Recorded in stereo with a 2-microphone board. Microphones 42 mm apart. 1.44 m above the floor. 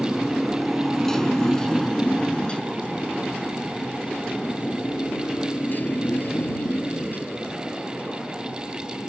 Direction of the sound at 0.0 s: 5° right (ahead or behind).